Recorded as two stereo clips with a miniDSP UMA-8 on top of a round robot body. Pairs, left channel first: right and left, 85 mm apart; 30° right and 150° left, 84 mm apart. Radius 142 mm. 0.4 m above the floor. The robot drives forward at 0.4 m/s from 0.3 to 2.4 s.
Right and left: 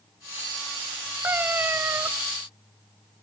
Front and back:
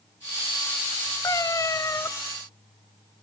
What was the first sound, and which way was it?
A cat meowing, 20° left.